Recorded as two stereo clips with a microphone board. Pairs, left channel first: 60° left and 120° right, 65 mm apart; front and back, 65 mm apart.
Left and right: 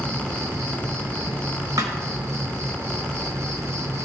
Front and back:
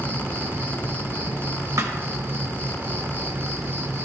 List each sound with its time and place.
0.0 s an insect: 135° right, 0.7 m
1.8 s a thud: 140° right, 1.0 m